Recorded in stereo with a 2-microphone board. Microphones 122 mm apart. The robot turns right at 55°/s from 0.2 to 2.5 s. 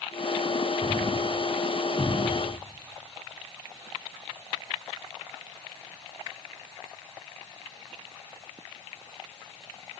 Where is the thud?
20° right (ahead or behind), 7 m; by 2.5 s 75° left (ahead or behind), 7 m.